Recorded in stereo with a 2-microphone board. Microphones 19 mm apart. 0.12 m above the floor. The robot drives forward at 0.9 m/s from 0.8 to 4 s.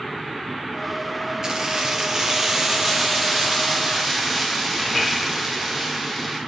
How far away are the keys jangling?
About 1.7 m.